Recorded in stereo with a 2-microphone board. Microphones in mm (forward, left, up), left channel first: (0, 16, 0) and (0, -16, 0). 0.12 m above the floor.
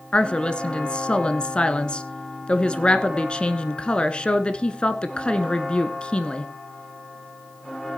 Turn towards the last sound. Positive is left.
turn(degrees=30)  # may be behind; listen again after turning